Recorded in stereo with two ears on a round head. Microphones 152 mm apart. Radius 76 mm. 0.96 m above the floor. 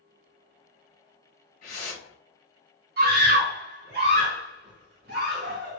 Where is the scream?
55° right (ahead or behind), 1.5 m.